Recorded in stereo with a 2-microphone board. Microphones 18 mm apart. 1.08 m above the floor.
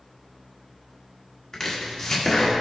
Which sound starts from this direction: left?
Chopping, at 1.5 s.